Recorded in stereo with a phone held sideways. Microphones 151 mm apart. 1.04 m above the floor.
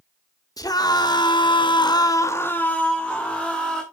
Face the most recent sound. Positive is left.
turn(degrees=0)  # may be behind; listen again after turning